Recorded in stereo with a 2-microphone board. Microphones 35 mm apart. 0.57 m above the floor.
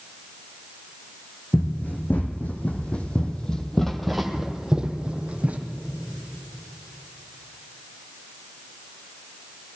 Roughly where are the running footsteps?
Left.